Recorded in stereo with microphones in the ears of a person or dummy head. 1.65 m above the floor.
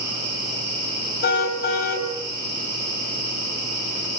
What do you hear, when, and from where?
1.2 s a car horn: 55° left (ahead or behind), 6.5 m